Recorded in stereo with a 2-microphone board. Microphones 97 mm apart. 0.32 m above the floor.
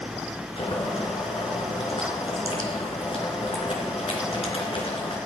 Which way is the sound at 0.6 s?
75° left (ahead or behind).